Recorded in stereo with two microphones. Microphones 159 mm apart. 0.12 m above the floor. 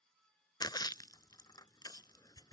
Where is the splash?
25° left (ahead or behind).